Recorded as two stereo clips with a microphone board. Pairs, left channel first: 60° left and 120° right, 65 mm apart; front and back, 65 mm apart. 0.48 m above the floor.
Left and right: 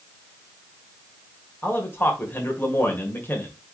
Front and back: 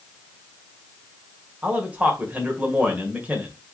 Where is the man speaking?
115° left, 1.7 m.